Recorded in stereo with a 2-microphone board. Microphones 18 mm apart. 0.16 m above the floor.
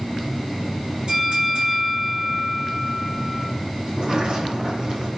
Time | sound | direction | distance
1.1 | a bell | 55° right (ahead or behind) | 6 m
3.9 | a sliding door | 55° right (ahead or behind) | 5 m